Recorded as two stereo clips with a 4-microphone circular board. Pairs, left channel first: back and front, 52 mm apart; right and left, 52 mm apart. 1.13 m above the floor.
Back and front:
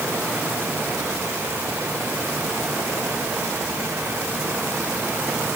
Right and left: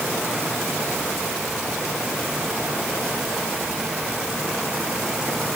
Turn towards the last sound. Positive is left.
No sound to turn to.